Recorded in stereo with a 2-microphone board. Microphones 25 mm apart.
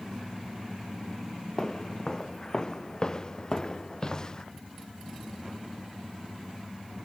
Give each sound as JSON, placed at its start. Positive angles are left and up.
{"t": 1.6, "sound": "footsteps", "side_deg": 25}